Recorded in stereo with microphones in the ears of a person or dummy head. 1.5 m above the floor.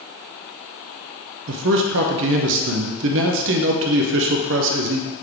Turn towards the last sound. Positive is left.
turn(degrees=-65)  # may be behind; listen again after turning